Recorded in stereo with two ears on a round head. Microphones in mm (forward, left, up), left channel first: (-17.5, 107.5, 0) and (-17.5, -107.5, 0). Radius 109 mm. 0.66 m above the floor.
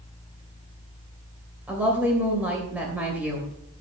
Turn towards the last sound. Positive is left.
turn(degrees=-5)  # may be behind; listen again after turning